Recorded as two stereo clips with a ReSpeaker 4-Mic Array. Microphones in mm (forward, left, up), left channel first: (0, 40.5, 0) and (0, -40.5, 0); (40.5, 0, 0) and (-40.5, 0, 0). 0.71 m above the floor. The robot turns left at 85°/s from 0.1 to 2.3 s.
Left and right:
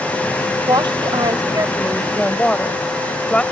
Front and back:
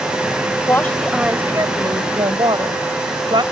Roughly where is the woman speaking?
Ahead right.